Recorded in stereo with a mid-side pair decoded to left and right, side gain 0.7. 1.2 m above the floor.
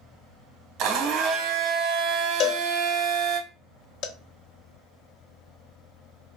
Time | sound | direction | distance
0.8 | a blender | 60° right | 0.7 m
2.4 | a cowbell | 55° left | 0.8 m